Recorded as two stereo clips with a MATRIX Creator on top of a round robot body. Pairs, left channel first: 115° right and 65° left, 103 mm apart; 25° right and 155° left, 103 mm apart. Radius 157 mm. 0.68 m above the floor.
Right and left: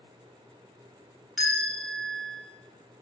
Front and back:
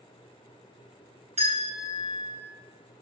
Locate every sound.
1.4 s a bell: 155° left, 4.5 m